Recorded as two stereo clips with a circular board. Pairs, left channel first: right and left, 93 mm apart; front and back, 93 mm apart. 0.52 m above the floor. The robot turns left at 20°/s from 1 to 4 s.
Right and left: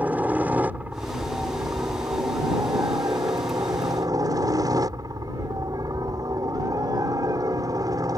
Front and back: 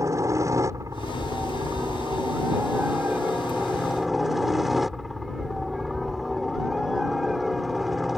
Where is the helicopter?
155° left; by 8.2 s 95° left.